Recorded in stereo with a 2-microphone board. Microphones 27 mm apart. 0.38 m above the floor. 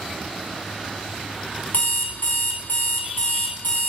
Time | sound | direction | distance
1.7 | an alarm clock | 75° left (ahead or behind) | 1.9 m